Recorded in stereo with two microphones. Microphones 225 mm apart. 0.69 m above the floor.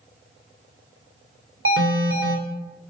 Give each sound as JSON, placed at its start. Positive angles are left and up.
{"t": 1.6, "sound": "an alarm", "side_deg": -65, "distance_m": 2.5}